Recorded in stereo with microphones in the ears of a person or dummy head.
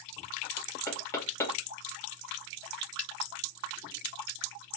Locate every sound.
0.9 s knocking: 20° left (ahead or behind), 1.5 m